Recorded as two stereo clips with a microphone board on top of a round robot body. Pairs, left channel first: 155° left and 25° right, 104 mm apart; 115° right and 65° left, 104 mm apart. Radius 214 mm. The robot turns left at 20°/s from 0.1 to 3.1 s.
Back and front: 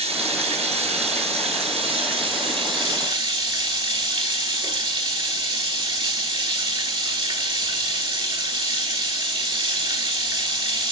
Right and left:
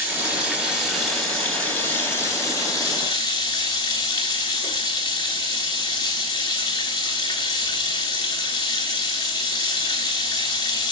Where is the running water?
5° right, 3.5 m; by 10.9 s 65° right, 3.5 m.